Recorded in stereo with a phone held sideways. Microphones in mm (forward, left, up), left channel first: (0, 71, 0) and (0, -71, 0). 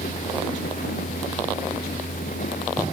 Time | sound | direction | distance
0.0 | a fan | 75° left (ahead or behind) | ?